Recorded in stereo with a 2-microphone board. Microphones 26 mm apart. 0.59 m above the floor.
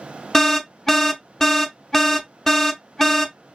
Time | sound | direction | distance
0.3 | an alarm | 15° left (ahead or behind) | 0.6 m